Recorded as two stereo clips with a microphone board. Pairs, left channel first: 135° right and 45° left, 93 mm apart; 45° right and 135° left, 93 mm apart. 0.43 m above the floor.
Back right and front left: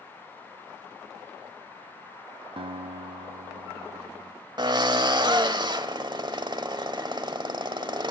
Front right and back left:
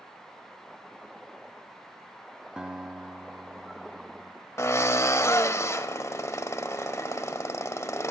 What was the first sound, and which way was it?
A guitar, 55° left.